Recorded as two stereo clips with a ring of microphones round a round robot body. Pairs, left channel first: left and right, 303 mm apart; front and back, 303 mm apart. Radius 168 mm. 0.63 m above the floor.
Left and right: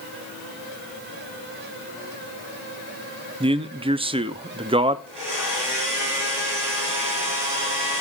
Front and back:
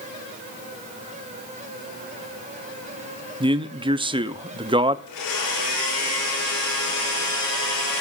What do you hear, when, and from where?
3.4 s a man speaking: 135° right, 0.6 m
5.1 s a blender: 20° right, 6.5 m